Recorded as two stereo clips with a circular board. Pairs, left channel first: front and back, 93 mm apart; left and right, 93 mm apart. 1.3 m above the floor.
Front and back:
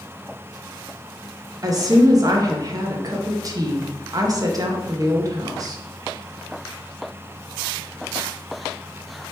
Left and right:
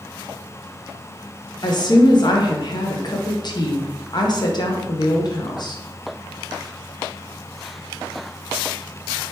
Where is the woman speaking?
130° left, 0.7 m.